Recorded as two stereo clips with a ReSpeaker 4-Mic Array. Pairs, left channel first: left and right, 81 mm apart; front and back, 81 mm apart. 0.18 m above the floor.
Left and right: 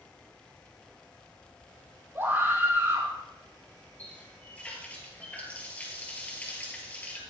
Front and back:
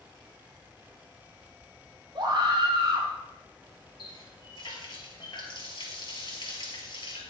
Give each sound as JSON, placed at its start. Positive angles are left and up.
{"t": 2.1, "sound": "a scream", "azimuth_deg": -150, "distance_m": 6.5}
{"t": 4.0, "sound": "a running tap", "azimuth_deg": 20, "distance_m": 2.5}